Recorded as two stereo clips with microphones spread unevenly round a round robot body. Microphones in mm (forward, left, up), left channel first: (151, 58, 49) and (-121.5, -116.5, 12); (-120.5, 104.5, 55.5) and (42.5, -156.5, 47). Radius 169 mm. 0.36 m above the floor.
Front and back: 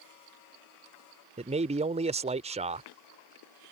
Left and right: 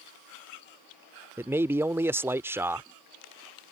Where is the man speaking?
130° right.